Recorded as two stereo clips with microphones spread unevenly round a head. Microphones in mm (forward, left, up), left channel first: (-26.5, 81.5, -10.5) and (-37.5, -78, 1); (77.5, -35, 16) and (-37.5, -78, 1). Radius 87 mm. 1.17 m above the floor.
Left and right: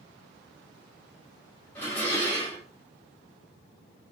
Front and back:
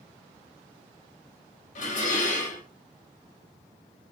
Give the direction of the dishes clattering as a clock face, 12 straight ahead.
12 o'clock.